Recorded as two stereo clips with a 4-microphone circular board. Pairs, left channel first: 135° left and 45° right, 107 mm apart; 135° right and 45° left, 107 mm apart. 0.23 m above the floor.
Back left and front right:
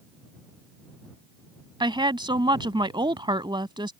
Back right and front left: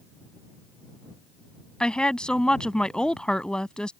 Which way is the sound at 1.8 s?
55° right.